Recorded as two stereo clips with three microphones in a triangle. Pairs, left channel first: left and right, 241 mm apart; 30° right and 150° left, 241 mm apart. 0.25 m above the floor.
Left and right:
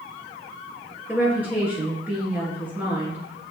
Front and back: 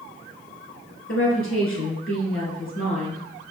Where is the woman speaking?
5° right, 3.5 m.